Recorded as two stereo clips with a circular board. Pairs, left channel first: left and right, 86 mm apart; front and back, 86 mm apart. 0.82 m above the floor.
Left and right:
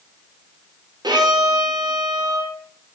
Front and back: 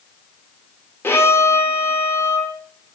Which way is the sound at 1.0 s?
60° right.